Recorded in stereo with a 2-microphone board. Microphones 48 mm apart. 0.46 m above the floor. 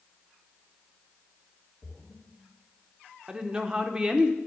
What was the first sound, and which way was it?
A splash, 45° left (ahead or behind).